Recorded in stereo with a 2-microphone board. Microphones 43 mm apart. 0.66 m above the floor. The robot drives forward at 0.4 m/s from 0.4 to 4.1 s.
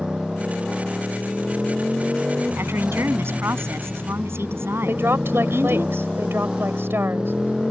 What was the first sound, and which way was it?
A motorcycle, 15° right (ahead or behind).